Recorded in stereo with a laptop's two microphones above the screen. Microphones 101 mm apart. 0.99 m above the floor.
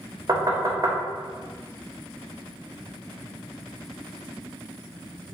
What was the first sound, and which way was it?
Knocking, 35° right (ahead or behind).